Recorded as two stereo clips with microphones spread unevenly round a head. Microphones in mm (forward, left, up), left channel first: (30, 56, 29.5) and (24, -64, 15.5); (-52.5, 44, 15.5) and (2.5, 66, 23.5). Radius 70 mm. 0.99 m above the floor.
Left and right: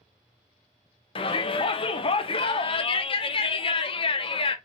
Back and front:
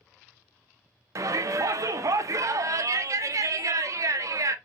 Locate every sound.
1.1 s a shout: 45° left, 0.7 m